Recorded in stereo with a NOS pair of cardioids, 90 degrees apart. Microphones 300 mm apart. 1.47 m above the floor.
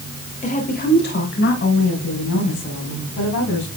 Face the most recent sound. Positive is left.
turn(degrees=70)